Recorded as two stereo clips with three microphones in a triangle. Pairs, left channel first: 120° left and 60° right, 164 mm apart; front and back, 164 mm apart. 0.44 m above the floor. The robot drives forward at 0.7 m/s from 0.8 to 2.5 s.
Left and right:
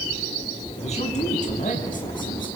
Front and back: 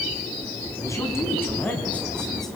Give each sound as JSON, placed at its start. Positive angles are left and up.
{"t": 0.8, "sound": "a man speaking", "azimuth_deg": 70, "distance_m": 4.0}